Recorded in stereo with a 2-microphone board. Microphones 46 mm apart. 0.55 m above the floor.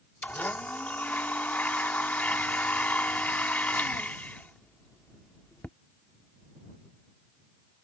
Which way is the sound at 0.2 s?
40° left (ahead or behind).